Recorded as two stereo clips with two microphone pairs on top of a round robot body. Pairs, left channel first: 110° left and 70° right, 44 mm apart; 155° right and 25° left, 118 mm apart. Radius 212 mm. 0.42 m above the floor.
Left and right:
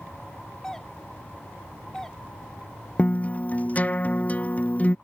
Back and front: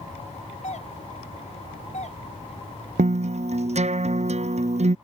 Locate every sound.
0.6 s a doorbell: 170° right
3.0 s a guitar: 55° left